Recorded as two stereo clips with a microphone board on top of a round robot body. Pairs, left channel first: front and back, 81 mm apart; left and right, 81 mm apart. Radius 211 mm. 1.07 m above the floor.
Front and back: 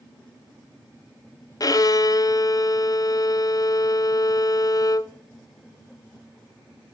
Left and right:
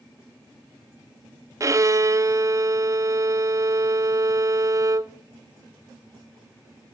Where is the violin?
40° right, 0.6 m.